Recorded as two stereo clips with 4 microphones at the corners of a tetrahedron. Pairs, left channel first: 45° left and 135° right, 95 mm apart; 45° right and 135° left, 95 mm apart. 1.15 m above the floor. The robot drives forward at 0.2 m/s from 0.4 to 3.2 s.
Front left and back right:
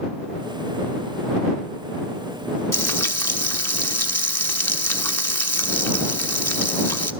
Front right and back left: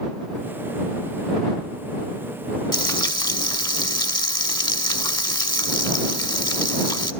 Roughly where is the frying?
Ahead.